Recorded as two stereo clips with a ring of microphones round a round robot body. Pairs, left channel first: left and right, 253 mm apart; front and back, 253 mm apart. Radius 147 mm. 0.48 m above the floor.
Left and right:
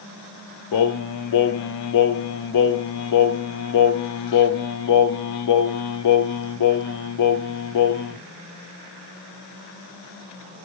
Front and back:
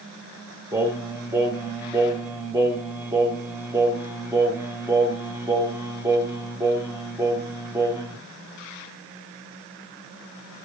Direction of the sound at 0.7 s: 100° left.